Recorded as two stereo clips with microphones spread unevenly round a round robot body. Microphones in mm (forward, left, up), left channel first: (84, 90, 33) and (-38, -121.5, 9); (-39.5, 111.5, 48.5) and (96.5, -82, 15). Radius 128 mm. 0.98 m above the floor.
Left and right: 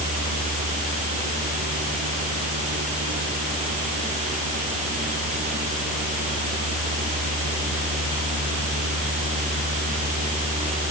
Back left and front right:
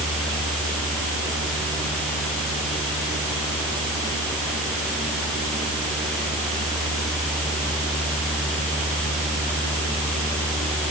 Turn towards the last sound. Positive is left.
No sound to turn to.